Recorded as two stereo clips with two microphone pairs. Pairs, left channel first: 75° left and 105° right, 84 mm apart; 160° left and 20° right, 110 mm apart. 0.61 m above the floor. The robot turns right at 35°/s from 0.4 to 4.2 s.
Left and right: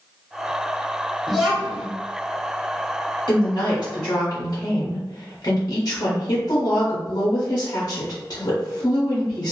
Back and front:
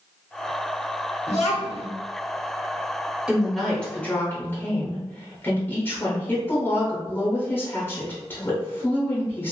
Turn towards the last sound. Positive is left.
turn(degrees=100)